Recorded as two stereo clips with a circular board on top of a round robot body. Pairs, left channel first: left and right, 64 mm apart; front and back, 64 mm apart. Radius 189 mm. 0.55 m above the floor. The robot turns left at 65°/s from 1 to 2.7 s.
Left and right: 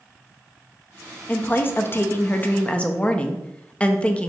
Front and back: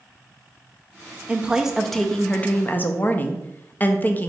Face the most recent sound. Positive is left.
turn(degrees=35)